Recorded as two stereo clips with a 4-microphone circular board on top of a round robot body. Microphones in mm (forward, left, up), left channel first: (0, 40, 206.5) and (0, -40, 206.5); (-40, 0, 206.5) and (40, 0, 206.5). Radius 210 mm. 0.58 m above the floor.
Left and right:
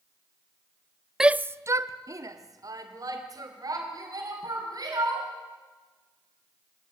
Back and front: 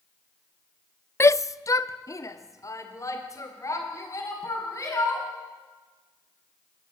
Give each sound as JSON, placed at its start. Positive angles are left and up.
{"t": 1.2, "sound": "a shout", "azimuth_deg": -170, "distance_m": 0.6}